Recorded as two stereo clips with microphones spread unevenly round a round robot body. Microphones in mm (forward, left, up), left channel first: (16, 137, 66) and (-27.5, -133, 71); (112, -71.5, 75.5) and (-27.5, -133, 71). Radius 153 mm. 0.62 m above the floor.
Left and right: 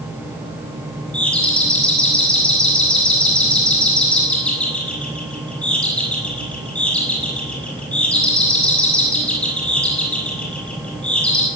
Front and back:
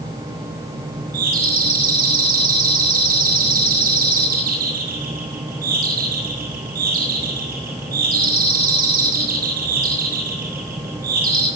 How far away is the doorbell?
About 6.5 m.